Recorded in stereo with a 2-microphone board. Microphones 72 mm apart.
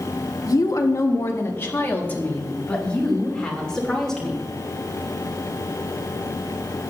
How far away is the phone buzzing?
No phone buzzing in this recording.